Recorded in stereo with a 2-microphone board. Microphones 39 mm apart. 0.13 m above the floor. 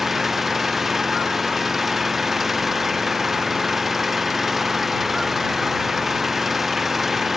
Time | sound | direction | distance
0.0 | an engine running | 5° right (ahead or behind) | ?